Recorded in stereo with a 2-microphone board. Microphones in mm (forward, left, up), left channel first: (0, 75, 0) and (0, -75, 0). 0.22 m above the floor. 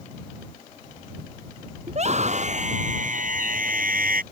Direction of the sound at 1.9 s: 45° right (ahead or behind).